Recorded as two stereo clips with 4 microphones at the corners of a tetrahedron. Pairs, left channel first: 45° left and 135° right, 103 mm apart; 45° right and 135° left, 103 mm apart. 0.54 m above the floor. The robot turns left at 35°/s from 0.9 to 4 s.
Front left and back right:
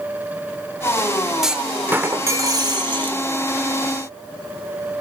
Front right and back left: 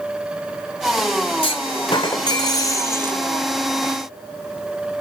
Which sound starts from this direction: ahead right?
A clunk, at 1.4 s.